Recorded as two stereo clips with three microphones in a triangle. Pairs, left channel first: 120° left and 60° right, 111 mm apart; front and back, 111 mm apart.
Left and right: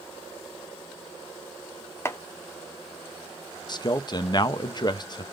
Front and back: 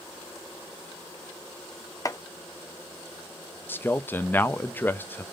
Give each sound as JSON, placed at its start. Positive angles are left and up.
{"t": 2.0, "sound": "chopping", "azimuth_deg": 55, "distance_m": 0.7}
{"t": 3.7, "sound": "a man speaking", "azimuth_deg": 70, "distance_m": 0.6}